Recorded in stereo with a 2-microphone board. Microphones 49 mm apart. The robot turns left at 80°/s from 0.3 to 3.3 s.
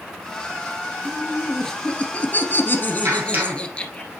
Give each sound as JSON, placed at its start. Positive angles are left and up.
{"t": 1.1, "sound": "laughter", "azimuth_deg": -145, "distance_m": 1.7}
{"t": 3.0, "sound": "a clap", "side_deg": -55, "distance_m": 2.0}